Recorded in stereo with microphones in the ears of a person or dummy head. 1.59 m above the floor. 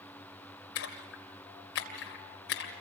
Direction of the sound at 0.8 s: 60° left (ahead or behind).